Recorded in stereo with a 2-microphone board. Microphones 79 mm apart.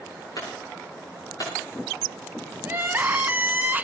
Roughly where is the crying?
Right.